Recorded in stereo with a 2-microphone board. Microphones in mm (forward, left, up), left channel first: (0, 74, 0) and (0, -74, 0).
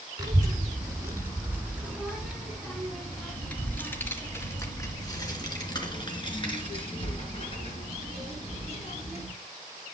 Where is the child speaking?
25° right (ahead or behind), 3 m; by 9.3 s 50° left (ahead or behind), 4.5 m.